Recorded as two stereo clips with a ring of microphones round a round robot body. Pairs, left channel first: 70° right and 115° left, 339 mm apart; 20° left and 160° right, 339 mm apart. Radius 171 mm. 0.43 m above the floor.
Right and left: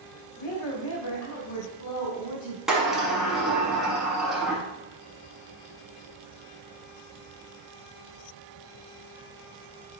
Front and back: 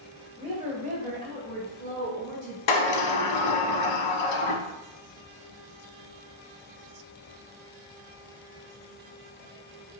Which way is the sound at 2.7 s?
25° left.